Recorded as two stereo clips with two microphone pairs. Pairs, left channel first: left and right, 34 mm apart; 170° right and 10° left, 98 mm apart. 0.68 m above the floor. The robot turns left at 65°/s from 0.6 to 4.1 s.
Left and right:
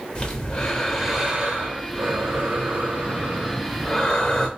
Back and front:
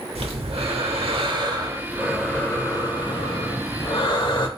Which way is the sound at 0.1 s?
20° left.